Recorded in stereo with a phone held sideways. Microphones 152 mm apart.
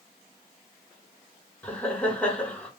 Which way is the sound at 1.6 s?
5° left (ahead or behind).